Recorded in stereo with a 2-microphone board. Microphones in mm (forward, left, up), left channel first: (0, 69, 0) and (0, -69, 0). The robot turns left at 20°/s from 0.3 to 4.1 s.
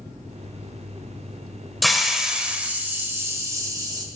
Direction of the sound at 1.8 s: Straight ahead.